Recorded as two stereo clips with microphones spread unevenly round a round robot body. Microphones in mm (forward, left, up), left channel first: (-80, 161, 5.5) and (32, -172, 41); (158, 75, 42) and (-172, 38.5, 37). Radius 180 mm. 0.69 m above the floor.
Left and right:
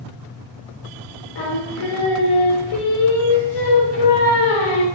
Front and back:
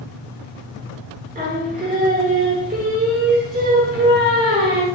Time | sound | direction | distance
1.4 | singing | 120° left | 1.0 m